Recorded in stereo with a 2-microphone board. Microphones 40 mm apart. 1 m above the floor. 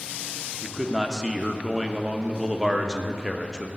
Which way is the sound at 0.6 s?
15° right (ahead or behind).